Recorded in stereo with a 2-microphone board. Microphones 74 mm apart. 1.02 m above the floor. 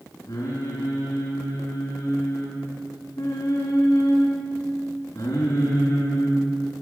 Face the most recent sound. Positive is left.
turn(degrees=40)  # may be behind; listen again after turning